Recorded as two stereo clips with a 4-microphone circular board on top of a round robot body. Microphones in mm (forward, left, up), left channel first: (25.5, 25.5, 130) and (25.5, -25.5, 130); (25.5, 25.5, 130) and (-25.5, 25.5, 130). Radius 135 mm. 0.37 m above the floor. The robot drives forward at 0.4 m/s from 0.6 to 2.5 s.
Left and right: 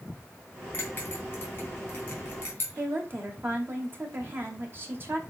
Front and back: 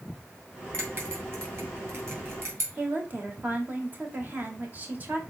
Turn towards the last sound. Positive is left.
turn(degrees=-130)